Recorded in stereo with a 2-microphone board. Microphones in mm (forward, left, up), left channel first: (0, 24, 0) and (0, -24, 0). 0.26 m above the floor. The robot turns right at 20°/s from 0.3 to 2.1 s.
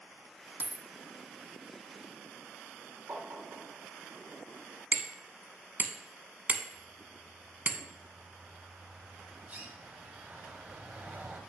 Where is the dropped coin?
30° right (ahead or behind), 0.7 m; by 0.8 s 35° right (ahead or behind), 0.7 m.